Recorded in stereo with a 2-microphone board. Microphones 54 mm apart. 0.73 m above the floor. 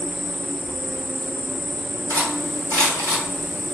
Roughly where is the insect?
Right.